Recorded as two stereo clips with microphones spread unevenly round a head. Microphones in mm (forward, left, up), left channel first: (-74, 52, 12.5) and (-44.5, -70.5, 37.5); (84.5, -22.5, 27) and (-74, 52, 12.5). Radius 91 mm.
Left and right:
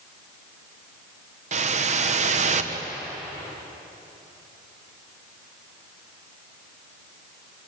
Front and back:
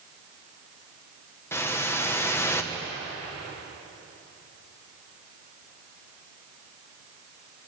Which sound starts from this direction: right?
A whoosh, at 1.5 s.